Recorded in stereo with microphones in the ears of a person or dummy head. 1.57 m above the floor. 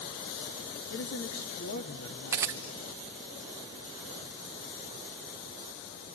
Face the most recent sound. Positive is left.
turn(degrees=-10)  # may be behind; listen again after turning